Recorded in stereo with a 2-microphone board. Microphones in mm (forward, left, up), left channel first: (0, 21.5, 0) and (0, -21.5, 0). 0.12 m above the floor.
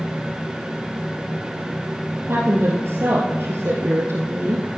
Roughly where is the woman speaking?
Right.